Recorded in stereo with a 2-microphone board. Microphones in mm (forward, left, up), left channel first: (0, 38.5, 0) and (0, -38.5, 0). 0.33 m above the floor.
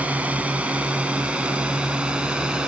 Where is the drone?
20° right (ahead or behind); by 2.7 s 10° right (ahead or behind).